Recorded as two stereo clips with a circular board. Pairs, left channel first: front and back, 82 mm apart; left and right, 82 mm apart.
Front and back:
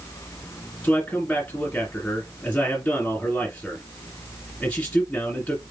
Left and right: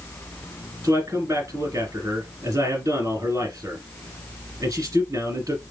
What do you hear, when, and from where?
0.8 s a man speaking: 70° right, 2 m